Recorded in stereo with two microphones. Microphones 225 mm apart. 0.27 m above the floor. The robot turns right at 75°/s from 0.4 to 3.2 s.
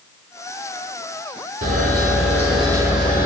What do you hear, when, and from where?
1.6 s a camera shutter: 105° right, 6 m; by 3.2 s 15° left, 6 m